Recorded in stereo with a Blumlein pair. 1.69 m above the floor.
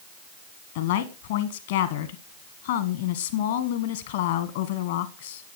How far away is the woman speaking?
About 1.2 m.